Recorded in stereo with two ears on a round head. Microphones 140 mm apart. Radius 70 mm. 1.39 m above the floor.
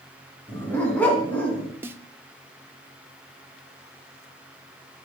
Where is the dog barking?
10° left (ahead or behind), 3 m.